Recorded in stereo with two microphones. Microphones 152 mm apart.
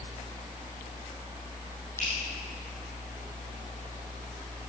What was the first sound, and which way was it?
Dripping, 15° left (ahead or behind).